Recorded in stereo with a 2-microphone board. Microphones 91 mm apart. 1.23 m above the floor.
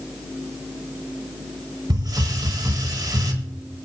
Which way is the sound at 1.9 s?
50° right (ahead or behind).